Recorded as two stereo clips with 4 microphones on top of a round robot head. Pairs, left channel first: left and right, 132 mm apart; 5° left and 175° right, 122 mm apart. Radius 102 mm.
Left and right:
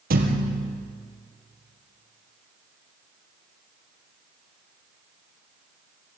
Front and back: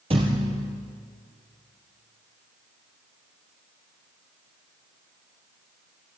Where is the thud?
115° right, 3 m.